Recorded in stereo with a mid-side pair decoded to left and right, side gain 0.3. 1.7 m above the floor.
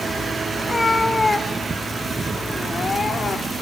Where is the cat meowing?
25° left, 3 m; by 3.5 s 60° left, 2.5 m.